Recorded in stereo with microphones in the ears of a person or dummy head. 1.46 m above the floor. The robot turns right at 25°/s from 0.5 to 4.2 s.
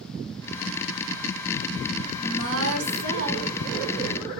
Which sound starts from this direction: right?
A woman speaking, at 2.2 s.